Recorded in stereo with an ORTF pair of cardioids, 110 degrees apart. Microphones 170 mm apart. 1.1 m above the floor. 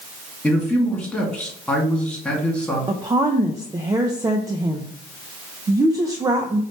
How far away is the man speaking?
About 2 m.